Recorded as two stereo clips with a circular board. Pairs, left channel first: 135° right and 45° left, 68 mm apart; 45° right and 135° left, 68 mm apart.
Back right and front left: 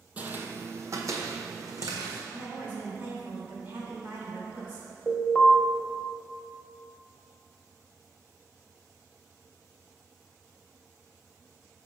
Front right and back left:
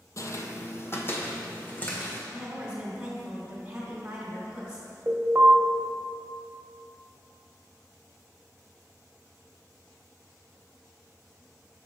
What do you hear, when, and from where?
0.2 s footsteps: 20° right, 0.5 m; by 2.2 s 20° left, 1.4 m
2.3 s a woman speaking: 70° left, 1.9 m
5.1 s an alarm: 150° left, 0.8 m